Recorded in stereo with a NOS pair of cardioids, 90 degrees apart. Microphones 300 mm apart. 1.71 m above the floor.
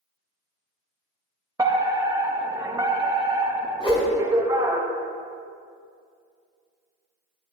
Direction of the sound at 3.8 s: 20° left.